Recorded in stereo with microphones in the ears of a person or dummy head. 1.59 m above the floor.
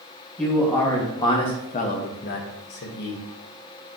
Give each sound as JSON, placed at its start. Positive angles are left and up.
{"t": 0.4, "sound": "a man speaking", "side_deg": 10, "distance_m": 1.2}